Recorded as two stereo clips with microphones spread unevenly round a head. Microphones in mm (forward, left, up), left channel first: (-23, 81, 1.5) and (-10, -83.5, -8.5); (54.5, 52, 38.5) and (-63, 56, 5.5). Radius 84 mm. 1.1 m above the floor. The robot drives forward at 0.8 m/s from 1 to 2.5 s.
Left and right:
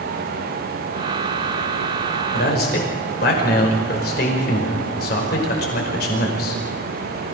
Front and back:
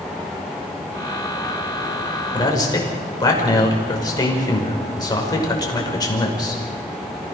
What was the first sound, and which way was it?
A man speaking, 55° left.